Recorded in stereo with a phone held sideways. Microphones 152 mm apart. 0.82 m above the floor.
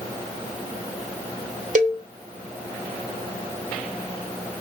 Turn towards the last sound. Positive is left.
turn(degrees=-50)  # may be behind; listen again after turning